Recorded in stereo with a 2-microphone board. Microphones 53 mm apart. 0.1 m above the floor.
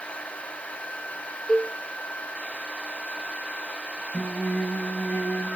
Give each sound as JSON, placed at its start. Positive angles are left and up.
{"t": 1.5, "sound": "a cowbell", "side_deg": 10, "distance_m": 1.4}
{"t": 4.1, "sound": "singing", "side_deg": 25, "distance_m": 7.0}